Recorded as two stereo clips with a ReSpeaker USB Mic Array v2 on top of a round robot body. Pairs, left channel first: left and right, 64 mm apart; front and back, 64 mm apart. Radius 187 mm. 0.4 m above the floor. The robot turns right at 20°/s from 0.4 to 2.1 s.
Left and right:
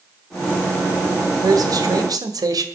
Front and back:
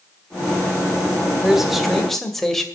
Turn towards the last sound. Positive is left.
turn(degrees=-85)